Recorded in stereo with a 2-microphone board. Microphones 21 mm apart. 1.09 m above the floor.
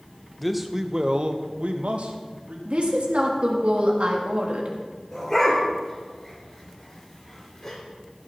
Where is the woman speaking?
65° right (ahead or behind), 2 m.